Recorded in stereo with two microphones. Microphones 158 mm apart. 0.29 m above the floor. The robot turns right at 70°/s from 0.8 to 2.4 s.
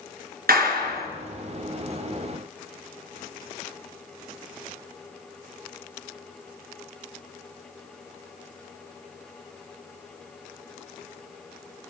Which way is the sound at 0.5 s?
70° right (ahead or behind).